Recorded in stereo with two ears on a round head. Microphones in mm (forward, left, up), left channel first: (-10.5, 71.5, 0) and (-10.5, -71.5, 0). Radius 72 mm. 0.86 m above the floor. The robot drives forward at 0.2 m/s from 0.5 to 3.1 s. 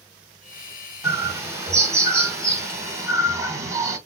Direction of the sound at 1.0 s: 15° right (ahead or behind).